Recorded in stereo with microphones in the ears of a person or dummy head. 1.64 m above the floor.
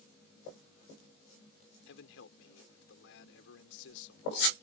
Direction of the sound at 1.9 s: 75° left (ahead or behind).